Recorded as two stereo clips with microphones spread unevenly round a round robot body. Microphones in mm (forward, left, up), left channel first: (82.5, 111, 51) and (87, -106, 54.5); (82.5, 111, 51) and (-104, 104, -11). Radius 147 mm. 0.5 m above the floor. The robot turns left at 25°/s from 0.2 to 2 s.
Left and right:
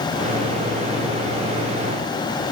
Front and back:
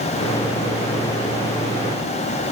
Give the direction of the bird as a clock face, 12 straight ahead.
No bird in this recording.